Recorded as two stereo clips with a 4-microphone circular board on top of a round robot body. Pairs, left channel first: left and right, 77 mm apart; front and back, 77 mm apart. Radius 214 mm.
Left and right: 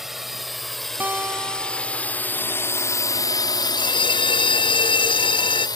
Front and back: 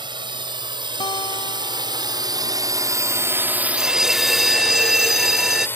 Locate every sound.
0.0 s a drone: 175° right; by 5.8 s 60° left
1.0 s a guitar: 20° right
3.8 s a bell: 95° left